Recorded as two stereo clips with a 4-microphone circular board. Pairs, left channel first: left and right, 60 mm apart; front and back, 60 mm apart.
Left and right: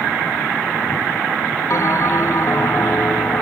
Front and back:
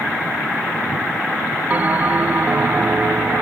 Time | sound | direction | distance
1.7 | a bell | 120° left | 0.5 m